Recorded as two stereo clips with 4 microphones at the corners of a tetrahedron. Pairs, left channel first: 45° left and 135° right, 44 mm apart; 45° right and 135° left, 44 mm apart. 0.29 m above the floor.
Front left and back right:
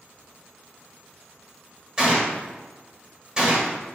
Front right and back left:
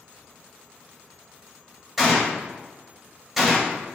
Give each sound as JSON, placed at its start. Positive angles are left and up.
{"t": 2.0, "sound": "a gunshot", "azimuth_deg": -150, "distance_m": 1.2}